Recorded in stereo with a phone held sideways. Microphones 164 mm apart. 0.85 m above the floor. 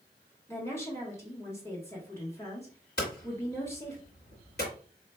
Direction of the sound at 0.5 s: 15° left (ahead or behind).